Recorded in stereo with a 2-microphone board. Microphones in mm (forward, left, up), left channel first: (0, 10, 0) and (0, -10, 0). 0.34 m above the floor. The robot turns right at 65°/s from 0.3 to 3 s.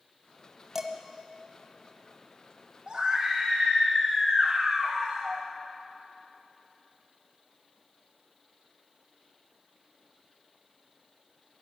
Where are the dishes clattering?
15° right (ahead or behind), 1.3 m; by 0.9 s 25° right (ahead or behind), 1.3 m.